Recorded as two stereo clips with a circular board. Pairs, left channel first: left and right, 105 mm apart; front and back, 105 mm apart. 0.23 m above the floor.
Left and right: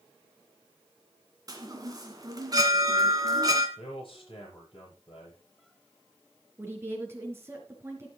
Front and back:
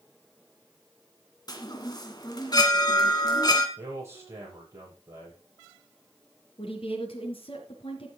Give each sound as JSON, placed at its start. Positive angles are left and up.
{"t": 1.5, "sound": "a chime", "azimuth_deg": -45, "distance_m": 1.8}
{"t": 3.8, "sound": "a man speaking", "azimuth_deg": 120, "distance_m": 8.0}
{"t": 6.6, "sound": "a woman speaking", "azimuth_deg": -25, "distance_m": 3.0}